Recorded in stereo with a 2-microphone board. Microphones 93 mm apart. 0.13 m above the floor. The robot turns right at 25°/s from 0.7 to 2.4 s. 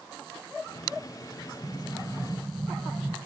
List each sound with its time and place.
1.6 s an explosion: 15° right (ahead or behind), 1.6 m; by 3.1 s 5° right (ahead or behind), 1.6 m